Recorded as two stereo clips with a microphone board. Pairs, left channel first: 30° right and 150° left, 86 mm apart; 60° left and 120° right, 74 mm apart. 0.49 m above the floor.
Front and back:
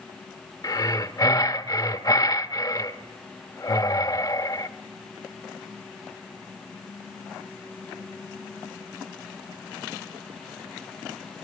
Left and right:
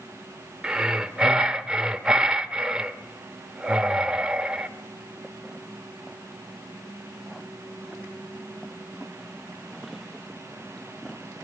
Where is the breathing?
40° right, 1.2 m.